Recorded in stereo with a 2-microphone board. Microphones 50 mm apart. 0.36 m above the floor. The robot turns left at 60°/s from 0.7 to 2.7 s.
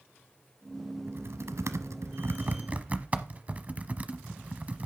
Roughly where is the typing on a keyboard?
Right.